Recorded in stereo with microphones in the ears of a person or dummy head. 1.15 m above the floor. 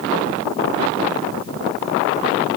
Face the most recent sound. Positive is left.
No sound to turn to.